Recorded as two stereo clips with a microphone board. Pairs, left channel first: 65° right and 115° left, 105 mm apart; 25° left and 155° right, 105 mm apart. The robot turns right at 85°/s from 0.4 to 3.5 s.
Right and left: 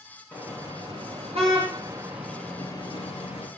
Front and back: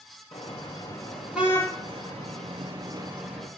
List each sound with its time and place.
0.3 s a car horn: 40° left, 7 m; by 3.5 s 60° right, 7 m